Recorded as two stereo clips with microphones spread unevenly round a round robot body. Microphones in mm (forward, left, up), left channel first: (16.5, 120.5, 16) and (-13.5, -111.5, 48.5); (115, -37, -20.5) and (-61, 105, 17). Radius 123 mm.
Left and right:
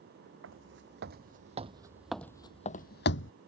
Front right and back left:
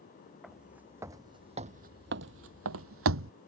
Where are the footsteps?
130° right; by 3.3 s 125° left.